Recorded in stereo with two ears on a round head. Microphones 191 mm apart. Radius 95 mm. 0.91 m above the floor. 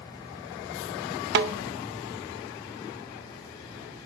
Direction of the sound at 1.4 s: 55° right (ahead or behind).